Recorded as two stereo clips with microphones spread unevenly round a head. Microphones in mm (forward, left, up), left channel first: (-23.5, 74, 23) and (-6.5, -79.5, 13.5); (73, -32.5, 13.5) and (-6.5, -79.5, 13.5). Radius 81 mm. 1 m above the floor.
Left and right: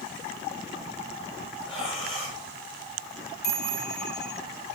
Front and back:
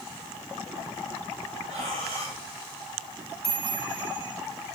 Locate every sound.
1.7 s breathing: 155° left, 9.5 m
3.4 s a chime: 115° left, 4.5 m